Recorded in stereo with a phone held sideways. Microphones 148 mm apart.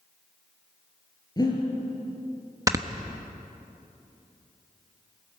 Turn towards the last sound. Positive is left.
turn(degrees=-25)  # may be behind; listen again after turning